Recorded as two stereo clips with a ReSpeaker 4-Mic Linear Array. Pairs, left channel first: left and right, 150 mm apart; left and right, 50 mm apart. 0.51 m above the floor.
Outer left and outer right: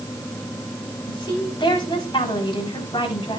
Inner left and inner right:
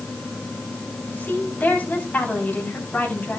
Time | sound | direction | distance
1.1 | a woman speaking | 35° left (ahead or behind) | 4 m